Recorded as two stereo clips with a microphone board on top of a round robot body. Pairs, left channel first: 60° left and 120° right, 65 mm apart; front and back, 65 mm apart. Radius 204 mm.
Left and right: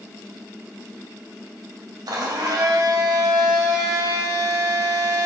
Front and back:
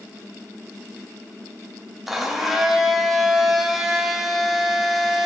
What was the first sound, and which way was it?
A blender, 95° right.